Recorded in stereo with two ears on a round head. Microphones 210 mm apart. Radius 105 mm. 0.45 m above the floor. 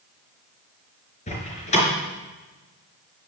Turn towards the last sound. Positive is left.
turn(degrees=30)  # may be behind; listen again after turning